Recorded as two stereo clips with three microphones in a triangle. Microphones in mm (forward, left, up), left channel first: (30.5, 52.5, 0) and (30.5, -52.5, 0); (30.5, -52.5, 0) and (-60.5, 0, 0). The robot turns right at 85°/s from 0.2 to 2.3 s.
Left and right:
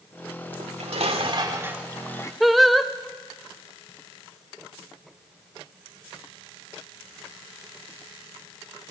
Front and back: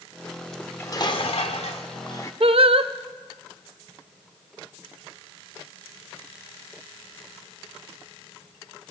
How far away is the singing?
About 0.7 m.